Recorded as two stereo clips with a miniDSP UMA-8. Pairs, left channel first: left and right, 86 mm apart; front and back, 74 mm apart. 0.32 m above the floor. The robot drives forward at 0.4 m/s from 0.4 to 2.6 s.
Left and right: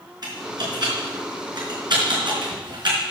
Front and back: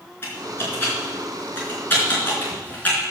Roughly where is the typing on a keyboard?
Ahead right.